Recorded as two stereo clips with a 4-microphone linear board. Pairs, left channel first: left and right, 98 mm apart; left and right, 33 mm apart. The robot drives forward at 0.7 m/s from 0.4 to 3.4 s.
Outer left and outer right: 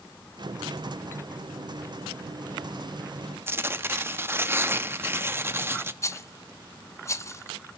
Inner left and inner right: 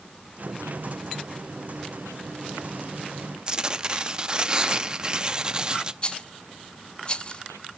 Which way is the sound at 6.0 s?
30° left (ahead or behind).